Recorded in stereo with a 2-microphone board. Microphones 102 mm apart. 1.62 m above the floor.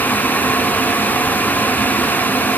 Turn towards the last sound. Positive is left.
No sound to turn to.